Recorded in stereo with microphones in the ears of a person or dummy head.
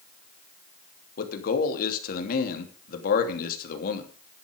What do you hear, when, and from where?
1.2 s a man speaking: 60° left (ahead or behind), 2.5 m